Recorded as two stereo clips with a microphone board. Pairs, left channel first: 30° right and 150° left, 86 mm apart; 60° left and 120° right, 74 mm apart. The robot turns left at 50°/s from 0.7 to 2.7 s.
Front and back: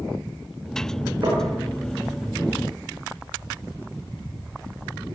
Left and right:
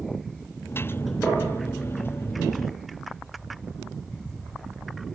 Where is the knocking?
120° left, 7.5 m; by 1.5 s 110° left, 7.5 m.